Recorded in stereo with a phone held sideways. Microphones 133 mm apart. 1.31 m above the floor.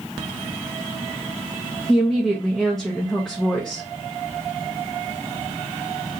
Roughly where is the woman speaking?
Centre.